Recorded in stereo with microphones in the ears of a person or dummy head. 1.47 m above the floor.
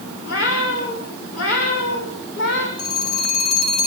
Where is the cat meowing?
80° left, 10 m; by 2.7 s 70° left (ahead or behind), 7.5 m.